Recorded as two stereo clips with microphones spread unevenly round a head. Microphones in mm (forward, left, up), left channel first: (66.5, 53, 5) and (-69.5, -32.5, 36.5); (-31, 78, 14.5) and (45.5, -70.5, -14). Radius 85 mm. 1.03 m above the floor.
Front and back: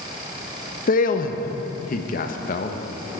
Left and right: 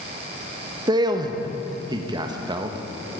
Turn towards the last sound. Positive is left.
turn(degrees=0)